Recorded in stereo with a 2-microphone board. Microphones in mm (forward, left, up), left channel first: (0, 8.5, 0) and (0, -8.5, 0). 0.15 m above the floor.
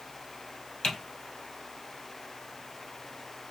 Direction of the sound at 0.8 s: 60° left (ahead or behind).